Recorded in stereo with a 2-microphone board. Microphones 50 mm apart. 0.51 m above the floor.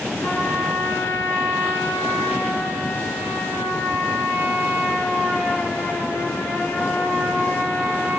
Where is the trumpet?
75° left (ahead or behind), 4.5 m.